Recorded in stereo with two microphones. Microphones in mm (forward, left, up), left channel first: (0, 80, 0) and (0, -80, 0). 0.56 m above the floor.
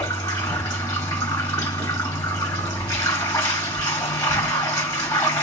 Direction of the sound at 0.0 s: 20° left (ahead or behind).